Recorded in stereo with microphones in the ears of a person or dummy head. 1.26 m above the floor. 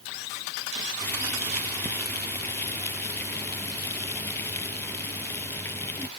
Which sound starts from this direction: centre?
Boiling, at 1.0 s.